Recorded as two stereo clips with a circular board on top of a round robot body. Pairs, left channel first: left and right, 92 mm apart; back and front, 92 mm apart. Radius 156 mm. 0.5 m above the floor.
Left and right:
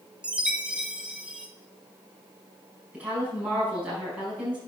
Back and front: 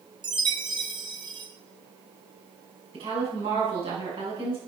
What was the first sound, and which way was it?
A chime, 15° right.